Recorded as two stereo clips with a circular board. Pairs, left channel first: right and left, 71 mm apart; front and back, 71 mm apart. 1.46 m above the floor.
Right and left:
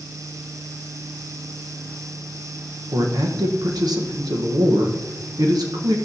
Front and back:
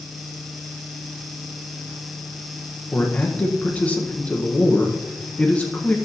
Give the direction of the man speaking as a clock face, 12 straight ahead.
10 o'clock.